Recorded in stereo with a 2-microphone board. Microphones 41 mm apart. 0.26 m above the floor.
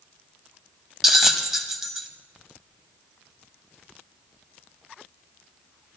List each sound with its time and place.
1.0 s a bell: 10° right (ahead or behind), 0.8 m